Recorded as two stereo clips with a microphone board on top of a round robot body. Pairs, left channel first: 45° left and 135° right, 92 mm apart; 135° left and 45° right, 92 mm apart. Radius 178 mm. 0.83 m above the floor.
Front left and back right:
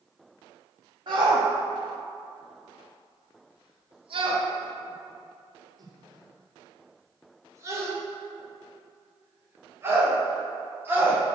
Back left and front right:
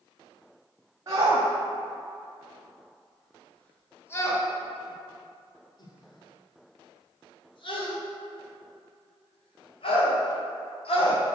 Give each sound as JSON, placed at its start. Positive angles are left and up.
{"t": 1.1, "sound": "a shout", "azimuth_deg": -100, "distance_m": 1.6}